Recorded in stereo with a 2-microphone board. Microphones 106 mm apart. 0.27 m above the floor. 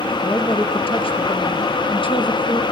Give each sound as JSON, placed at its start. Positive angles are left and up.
{"t": 0.2, "sound": "a woman speaking", "side_deg": 60, "distance_m": 5.5}